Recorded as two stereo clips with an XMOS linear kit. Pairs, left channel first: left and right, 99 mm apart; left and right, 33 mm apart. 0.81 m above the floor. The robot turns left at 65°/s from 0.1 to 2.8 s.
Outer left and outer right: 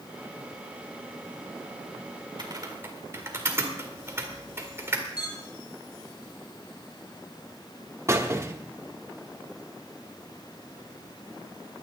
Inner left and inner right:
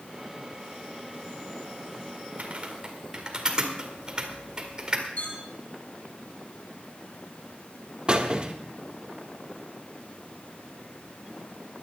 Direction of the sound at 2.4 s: 50° right (ahead or behind).